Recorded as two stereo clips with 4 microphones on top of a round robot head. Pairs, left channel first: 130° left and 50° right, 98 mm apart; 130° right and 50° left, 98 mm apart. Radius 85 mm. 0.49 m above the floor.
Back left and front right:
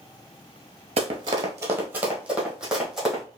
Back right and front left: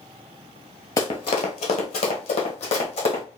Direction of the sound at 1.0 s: 75° right.